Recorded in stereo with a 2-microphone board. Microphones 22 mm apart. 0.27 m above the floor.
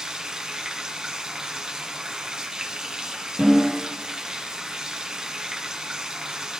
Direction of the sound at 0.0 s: 30° right (ahead or behind).